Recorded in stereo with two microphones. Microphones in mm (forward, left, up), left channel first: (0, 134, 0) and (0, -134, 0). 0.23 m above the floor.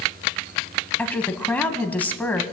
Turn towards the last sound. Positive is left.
turn(degrees=5)  # may be behind; listen again after turning